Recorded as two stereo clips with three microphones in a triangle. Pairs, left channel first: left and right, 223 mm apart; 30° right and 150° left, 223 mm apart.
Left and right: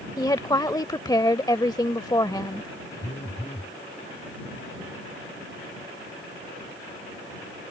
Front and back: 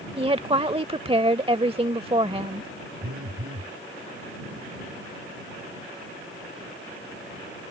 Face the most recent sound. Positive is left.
turn(degrees=150)